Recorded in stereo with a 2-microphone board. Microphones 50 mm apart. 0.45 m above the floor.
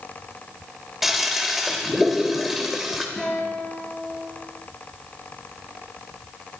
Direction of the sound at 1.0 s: Centre (ahead or behind).